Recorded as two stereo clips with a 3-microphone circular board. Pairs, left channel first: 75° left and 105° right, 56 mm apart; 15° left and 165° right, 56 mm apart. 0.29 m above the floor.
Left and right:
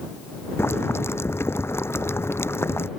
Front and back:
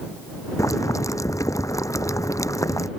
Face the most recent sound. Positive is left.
turn(degrees=35)